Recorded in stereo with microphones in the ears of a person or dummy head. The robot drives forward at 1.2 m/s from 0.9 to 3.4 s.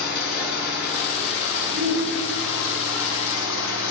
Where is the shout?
40° right (ahead or behind), 9 m; by 2.7 s 35° right (ahead or behind), 10 m.